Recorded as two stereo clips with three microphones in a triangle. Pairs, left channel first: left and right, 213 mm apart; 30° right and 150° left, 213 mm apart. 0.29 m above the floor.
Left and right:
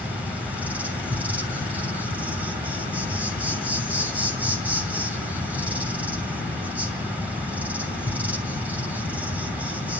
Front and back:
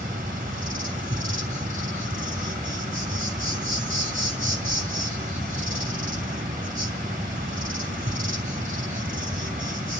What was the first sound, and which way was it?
An insect, 170° right.